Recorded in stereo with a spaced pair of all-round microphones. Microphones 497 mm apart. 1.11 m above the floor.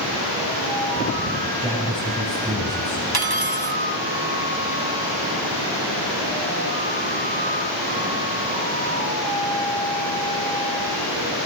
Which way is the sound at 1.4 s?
Centre (ahead or behind).